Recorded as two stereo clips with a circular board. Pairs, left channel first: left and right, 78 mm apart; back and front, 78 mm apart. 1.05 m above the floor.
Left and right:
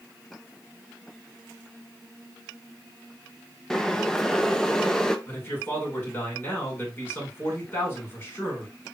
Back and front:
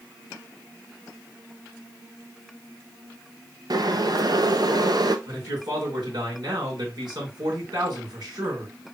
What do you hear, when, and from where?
3.7 s boiling: 10° left, 0.6 m
5.3 s a man speaking: 30° left, 3.5 m